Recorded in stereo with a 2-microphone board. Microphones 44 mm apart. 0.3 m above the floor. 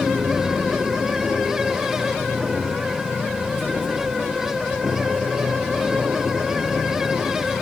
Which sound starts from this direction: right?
An aircraft, at 0.0 s.